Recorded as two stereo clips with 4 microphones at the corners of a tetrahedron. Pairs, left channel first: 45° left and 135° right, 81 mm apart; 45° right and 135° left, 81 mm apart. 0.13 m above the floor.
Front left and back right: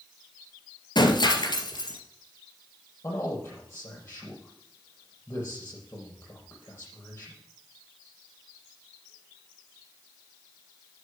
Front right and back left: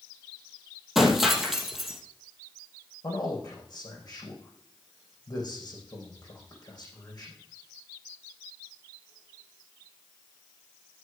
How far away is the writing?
I don't hear writing.